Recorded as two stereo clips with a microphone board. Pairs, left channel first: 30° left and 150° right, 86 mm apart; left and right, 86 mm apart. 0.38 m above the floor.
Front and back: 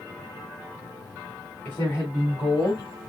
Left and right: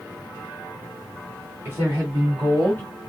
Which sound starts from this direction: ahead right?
A woman speaking, at 1.6 s.